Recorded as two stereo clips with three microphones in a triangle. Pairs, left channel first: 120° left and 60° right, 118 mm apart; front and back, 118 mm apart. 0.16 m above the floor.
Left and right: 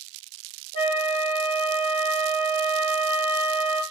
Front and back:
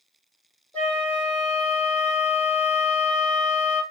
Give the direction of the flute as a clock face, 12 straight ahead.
9 o'clock.